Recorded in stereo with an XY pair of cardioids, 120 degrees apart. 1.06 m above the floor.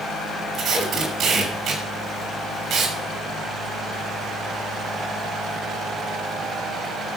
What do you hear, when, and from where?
0.5 s tape being pulled: 55° right, 6.5 m